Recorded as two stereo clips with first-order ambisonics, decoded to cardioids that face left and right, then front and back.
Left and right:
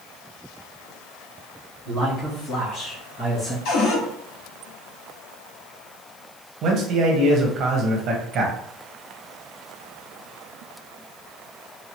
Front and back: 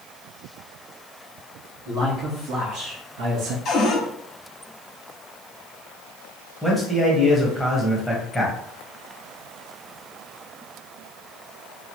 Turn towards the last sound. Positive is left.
turn(degrees=-90)